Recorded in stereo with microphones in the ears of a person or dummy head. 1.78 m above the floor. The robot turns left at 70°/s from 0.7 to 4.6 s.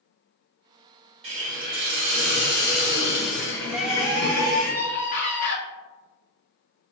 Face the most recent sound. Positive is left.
turn(degrees=130)